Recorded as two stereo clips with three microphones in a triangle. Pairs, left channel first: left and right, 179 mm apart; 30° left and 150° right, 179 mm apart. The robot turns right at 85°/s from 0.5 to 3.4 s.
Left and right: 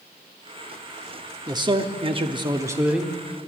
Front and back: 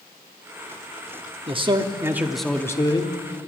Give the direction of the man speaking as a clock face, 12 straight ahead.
5 o'clock.